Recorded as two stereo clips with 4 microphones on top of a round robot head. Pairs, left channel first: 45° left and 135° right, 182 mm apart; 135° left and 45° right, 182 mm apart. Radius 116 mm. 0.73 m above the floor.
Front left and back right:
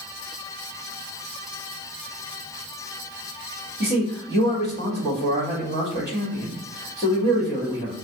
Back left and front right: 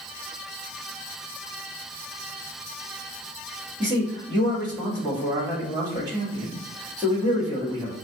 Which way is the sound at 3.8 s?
130° right.